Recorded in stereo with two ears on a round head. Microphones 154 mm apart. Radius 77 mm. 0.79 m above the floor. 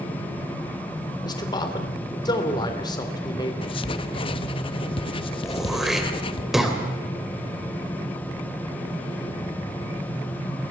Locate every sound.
1.2 s a man speaking: 25° left (ahead or behind), 3 m
3.6 s writing: 30° left (ahead or behind), 1.0 m
5.4 s throat clearing: centre (ahead or behind), 3 m